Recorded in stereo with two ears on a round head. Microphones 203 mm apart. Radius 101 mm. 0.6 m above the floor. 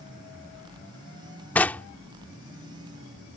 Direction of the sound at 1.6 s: 10° left (ahead or behind).